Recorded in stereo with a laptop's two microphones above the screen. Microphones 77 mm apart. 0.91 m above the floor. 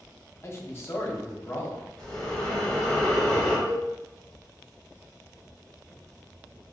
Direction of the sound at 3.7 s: 45° right (ahead or behind).